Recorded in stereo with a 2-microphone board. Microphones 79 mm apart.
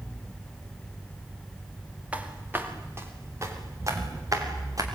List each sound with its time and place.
2.1 s footsteps: 20° right (ahead or behind), 3 m; by 4.9 s 50° right (ahead or behind), 6 m